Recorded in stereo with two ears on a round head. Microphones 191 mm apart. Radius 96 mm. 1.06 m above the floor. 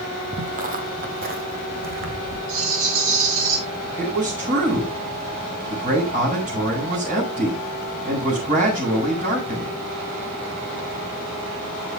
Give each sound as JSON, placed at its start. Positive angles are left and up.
{"t": 0.3, "sound": "footsteps", "side_deg": -35, "distance_m": 1.4}
{"t": 2.5, "sound": "a rattle", "side_deg": -70, "distance_m": 7.5}
{"t": 4.0, "sound": "a man speaking", "side_deg": -40, "distance_m": 7.0}